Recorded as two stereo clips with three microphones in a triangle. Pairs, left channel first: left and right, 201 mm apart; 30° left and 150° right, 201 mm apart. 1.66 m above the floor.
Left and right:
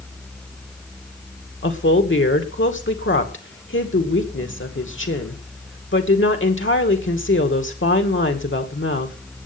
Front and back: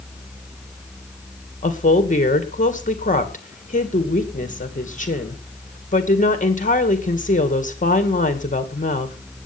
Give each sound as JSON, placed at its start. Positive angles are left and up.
{"t": 1.6, "sound": "a woman speaking", "azimuth_deg": 80, "distance_m": 2.0}